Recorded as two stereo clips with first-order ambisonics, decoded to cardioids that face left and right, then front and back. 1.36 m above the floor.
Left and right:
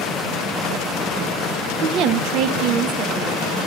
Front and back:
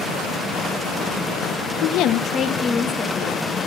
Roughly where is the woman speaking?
Ahead right.